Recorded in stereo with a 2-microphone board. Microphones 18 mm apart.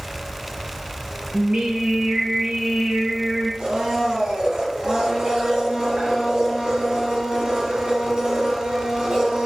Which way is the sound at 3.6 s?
80° right.